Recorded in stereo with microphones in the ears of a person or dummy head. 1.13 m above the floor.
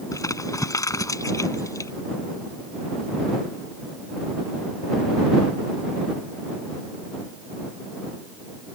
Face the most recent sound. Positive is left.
turn(degrees=15)  # may be behind; listen again after turning